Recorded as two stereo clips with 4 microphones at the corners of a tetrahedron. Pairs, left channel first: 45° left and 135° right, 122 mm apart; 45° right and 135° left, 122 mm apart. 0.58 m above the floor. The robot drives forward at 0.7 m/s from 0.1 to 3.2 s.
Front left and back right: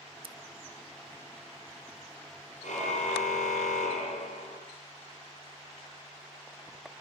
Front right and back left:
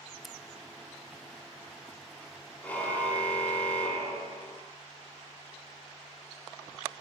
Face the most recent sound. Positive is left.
turn(degrees=35)